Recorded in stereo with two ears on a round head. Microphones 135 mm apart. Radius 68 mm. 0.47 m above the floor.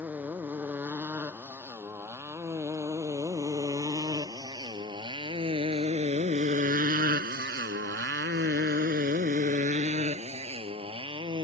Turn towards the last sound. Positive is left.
turn(degrees=-30)  # may be behind; listen again after turning